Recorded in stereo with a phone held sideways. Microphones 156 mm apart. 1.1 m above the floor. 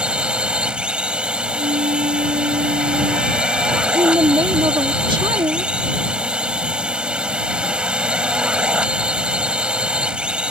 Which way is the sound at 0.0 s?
5° right (ahead or behind).